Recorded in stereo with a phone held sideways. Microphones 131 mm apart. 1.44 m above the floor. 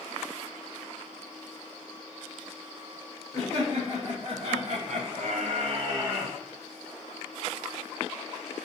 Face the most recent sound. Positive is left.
turn(degrees=-15)  # may be behind; listen again after turning